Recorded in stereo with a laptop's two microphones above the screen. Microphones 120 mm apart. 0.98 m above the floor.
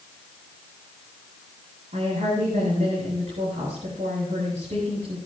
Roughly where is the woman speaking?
Right.